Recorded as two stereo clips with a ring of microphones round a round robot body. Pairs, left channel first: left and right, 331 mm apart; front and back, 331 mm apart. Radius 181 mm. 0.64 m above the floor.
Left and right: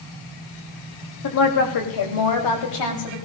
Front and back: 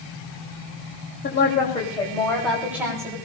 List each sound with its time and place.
1.2 s a woman speaking: 60° left, 3 m; by 3.1 s 100° left, 4 m